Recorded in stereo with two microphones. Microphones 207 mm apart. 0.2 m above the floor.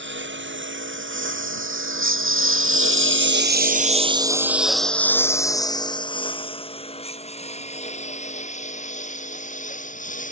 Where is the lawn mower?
65° right (ahead or behind); by 10.3 s 40° left (ahead or behind).